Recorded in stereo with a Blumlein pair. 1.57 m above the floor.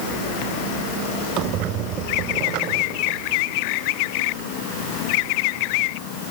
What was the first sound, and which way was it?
A squeak, 35° right.